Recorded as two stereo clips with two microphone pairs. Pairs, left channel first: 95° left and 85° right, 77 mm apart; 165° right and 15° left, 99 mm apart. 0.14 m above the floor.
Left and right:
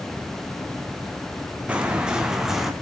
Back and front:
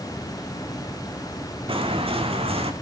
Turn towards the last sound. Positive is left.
turn(degrees=5)